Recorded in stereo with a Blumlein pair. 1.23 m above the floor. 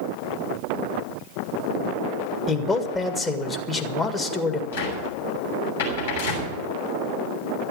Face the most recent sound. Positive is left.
turn(degrees=65)